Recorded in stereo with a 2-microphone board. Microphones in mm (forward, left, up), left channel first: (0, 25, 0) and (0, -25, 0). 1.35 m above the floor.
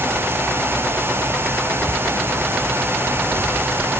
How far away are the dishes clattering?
I don't hear dishes clattering.